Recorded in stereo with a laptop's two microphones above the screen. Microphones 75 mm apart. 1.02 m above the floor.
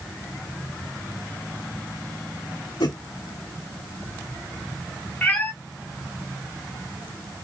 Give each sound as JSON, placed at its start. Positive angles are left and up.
{"t": 2.8, "sound": "a whoosh", "side_deg": 80, "distance_m": 3.5}
{"t": 5.2, "sound": "a cat meowing", "side_deg": 25, "distance_m": 1.0}